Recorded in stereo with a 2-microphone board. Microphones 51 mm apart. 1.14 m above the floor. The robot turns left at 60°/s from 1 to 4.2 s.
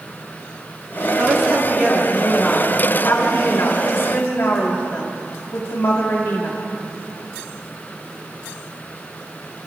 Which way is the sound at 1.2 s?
115° right.